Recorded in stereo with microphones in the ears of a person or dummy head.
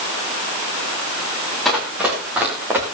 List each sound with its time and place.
1.6 s running footsteps: centre (ahead or behind), 3 m; by 2.8 s 10° right (ahead or behind), 3.5 m